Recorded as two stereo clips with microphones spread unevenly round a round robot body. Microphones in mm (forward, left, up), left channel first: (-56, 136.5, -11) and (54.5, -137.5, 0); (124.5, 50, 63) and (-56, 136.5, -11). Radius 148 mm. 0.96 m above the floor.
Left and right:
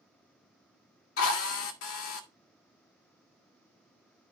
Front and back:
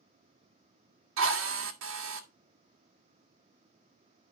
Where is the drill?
160° left, 1.6 m.